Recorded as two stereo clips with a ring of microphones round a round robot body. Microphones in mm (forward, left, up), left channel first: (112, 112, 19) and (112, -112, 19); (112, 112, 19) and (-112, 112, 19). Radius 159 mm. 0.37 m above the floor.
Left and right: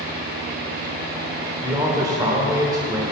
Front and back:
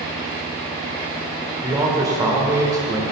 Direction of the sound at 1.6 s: 135° right.